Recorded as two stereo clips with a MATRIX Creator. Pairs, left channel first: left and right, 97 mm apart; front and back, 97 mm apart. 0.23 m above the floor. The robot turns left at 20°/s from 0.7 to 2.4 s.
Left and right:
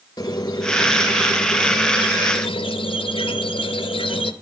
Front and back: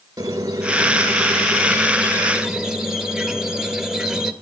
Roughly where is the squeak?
Behind left.